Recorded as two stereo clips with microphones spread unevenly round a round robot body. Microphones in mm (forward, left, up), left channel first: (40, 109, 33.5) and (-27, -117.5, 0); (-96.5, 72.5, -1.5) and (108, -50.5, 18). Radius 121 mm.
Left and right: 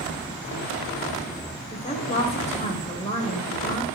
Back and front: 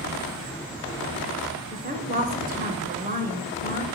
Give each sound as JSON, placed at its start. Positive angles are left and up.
{"t": 1.7, "sound": "a woman speaking", "azimuth_deg": 15, "distance_m": 1.4}